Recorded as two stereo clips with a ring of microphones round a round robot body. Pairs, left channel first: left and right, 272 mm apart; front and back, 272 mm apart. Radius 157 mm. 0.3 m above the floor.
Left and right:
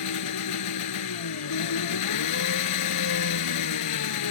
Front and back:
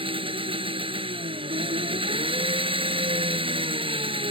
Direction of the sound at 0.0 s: 110° left.